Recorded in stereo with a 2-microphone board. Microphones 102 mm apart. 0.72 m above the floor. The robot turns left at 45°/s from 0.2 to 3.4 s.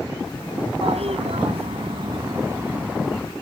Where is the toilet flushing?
75° right; by 3.2 s 175° left.